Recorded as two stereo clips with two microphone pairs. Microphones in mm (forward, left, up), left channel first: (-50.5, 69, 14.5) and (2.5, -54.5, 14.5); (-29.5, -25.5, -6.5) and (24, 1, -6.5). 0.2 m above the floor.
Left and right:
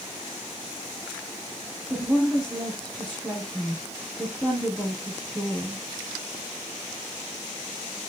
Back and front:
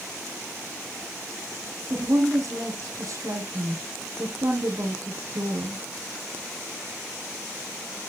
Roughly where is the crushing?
No crushing in this recording.